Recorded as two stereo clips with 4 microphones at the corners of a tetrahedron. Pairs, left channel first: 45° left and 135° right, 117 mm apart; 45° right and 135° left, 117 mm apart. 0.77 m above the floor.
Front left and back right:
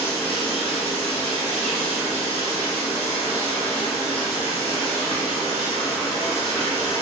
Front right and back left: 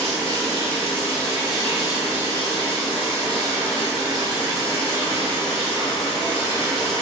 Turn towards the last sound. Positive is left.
turn(degrees=35)